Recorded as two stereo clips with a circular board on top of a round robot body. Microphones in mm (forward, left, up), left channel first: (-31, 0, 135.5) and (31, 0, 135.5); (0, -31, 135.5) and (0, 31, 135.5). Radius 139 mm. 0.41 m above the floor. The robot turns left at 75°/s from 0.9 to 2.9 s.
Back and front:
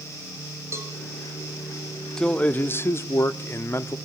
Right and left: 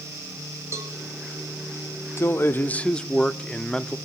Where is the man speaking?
105° right, 1.2 m; by 4.0 s 160° right, 1.2 m.